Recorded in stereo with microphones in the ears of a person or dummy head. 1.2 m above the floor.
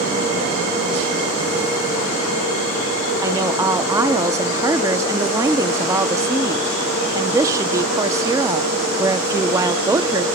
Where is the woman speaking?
15° right (ahead or behind), 0.5 m.